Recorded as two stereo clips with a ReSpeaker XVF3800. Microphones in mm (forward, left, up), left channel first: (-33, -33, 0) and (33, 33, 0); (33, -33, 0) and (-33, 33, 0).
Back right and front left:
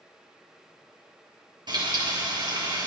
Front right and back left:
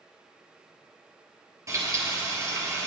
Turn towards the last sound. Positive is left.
turn(degrees=80)